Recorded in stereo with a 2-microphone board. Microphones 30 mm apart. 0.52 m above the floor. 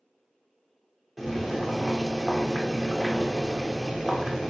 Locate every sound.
1.2 s boiling: 10° right (ahead or behind), 0.6 m